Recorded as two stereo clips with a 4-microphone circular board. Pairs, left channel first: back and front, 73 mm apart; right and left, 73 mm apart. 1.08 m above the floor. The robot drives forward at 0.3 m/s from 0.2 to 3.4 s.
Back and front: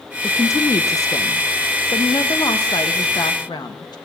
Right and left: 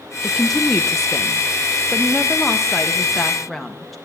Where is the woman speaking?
175° right, 0.6 m; by 4.0 s straight behind, 1.4 m.